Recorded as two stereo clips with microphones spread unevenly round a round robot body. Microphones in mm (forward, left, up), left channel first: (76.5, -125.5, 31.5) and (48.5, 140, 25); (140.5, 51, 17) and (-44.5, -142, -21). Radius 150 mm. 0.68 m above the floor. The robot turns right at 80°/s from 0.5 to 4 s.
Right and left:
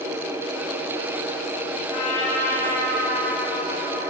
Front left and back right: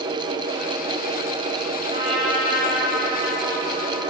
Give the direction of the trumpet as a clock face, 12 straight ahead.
2 o'clock.